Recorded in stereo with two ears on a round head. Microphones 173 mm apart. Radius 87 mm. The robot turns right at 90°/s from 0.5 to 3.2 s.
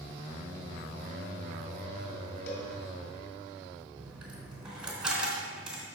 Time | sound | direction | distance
2.5 | a cowbell | 65° left (ahead or behind) | 2 m
4.0 | a dropped coin | 5° right (ahead or behind) | 3.5 m